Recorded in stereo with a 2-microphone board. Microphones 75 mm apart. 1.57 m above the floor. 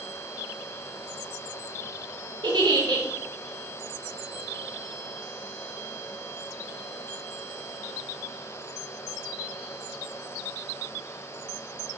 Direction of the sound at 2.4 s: 80° right.